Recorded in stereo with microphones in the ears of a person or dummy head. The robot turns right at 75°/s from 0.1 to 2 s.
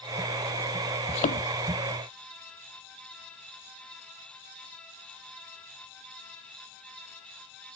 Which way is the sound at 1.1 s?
30° left (ahead or behind).